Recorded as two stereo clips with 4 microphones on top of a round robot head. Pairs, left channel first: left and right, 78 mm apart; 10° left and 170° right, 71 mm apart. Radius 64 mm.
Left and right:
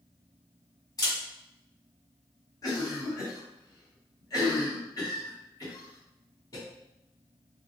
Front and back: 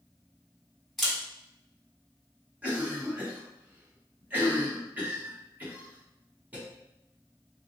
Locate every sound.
1.0 s a camera shutter: 95° left, 1.4 m
2.6 s a cough: 125° left, 1.6 m